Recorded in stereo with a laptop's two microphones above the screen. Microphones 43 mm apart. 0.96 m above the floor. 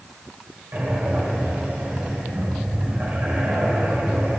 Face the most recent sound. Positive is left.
turn(degrees=-55)  # may be behind; listen again after turning